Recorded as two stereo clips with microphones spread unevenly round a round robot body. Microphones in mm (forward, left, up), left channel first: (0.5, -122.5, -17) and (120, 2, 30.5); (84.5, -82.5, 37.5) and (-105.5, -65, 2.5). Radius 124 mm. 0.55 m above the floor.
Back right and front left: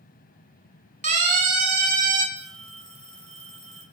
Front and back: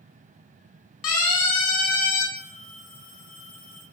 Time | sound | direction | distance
1.0 | a siren | 5° right | 7 m
2.4 | a phone ringing | 10° right | 9 m